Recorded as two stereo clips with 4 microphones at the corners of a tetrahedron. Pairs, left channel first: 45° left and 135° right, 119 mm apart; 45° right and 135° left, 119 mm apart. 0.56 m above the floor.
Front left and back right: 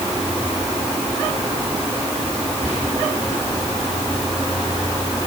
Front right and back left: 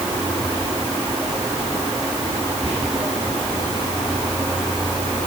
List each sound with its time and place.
2.6 s whispering: 55° right, 4 m